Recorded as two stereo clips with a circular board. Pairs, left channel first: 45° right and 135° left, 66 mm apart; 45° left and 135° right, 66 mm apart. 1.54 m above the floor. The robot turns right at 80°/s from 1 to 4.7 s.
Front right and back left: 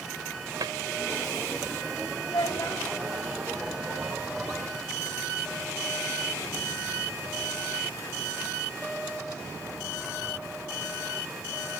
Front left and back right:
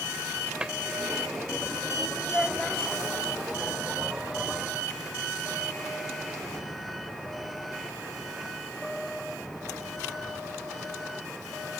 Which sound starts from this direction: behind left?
A cupboard door, at 0.6 s.